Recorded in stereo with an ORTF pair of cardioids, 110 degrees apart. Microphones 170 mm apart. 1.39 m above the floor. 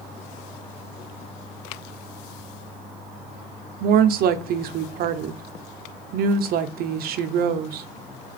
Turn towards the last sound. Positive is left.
turn(degrees=-65)